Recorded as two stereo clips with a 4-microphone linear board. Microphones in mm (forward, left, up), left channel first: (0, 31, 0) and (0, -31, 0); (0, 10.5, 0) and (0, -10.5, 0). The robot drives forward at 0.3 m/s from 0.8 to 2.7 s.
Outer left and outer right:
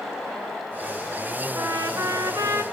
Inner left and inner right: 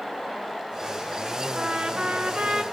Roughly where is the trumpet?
Right.